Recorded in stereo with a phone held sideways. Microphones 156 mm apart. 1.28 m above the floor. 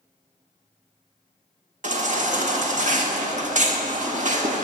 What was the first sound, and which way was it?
A baby crying, 55° right (ahead or behind).